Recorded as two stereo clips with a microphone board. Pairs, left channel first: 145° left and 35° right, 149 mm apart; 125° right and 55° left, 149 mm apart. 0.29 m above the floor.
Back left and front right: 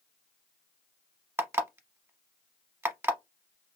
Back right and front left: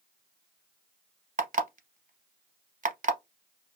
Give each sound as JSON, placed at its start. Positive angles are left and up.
{"t": 1.4, "sound": "an alarm clock", "azimuth_deg": 40, "distance_m": 0.7}